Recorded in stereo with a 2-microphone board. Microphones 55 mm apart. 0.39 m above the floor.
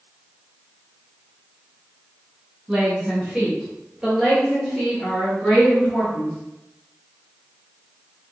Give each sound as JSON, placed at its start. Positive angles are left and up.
{"t": 2.7, "sound": "a woman speaking", "side_deg": -15, "distance_m": 1.6}